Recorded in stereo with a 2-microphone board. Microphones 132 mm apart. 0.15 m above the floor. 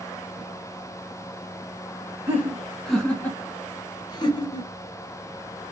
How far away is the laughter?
About 1.3 m.